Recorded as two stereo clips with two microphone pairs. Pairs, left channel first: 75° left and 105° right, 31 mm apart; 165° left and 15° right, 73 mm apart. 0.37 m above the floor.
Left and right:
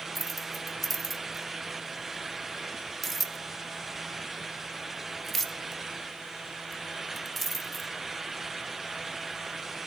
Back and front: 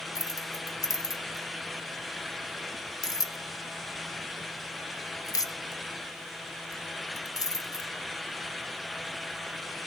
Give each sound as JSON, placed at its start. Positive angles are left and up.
{"t": 0.1, "sound": "keys jangling", "azimuth_deg": 155, "distance_m": 1.0}